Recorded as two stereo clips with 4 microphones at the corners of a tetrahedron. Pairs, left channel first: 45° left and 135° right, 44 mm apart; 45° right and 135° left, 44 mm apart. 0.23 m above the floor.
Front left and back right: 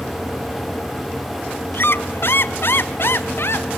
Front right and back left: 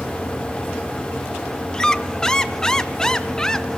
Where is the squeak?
30° left, 1.0 m.